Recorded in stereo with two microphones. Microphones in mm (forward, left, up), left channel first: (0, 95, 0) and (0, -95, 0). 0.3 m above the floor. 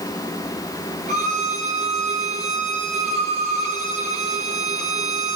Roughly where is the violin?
Right.